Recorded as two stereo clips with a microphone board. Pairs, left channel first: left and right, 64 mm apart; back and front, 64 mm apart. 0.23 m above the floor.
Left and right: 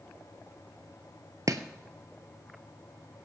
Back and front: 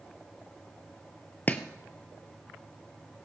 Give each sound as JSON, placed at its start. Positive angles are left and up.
{"t": 1.5, "sound": "chopping", "azimuth_deg": -115, "distance_m": 0.9}